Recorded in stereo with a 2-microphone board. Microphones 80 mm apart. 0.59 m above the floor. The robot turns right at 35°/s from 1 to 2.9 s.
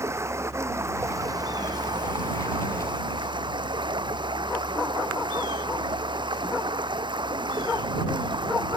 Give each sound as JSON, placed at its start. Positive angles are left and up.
{"t": 0.0, "sound": "running water", "azimuth_deg": -145}